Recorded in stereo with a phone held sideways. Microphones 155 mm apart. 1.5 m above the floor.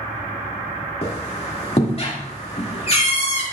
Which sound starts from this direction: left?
A squeak, at 1.0 s.